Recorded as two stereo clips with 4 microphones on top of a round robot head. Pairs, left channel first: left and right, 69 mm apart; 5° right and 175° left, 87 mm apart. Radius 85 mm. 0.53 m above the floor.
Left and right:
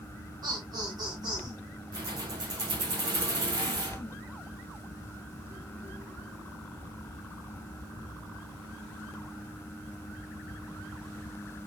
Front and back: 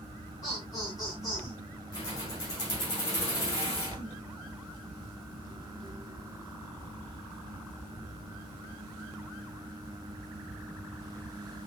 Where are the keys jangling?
55° right, 5 m.